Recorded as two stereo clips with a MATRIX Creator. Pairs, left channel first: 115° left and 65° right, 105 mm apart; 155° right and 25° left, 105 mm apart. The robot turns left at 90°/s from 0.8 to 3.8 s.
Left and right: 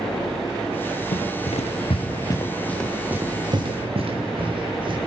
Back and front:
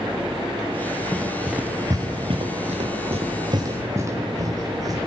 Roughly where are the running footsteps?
Behind left.